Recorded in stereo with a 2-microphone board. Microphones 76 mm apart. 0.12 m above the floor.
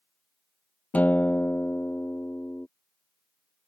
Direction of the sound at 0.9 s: 20° left (ahead or behind).